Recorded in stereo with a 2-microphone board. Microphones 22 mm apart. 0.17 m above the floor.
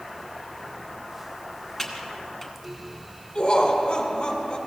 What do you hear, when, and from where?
1.8 s typing on a keyboard: 5° left (ahead or behind), 1.3 m
3.4 s laughter: 30° left (ahead or behind), 1.5 m